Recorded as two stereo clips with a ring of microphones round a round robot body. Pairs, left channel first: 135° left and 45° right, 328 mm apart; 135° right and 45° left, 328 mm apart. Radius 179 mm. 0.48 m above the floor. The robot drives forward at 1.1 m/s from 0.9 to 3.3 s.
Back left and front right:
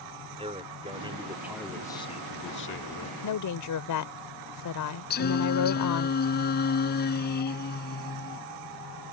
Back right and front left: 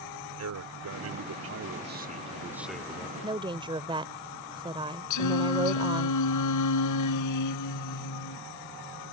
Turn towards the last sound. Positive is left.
turn(degrees=-165)